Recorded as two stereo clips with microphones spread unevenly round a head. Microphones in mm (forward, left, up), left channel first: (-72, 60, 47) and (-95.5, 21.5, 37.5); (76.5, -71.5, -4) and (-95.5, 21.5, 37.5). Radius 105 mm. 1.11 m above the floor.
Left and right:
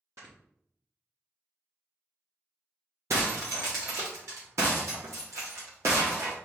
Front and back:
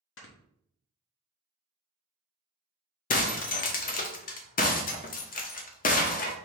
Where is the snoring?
55° right, 1.1 m.